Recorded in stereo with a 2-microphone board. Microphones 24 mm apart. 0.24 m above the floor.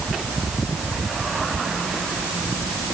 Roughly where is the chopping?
I don't hear chopping.